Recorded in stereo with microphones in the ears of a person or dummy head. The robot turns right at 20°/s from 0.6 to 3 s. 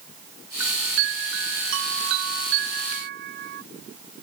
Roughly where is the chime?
Behind right.